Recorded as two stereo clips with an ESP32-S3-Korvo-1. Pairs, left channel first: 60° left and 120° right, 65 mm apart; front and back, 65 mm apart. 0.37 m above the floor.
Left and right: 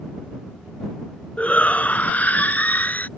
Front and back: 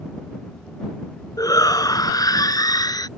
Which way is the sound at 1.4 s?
10° right.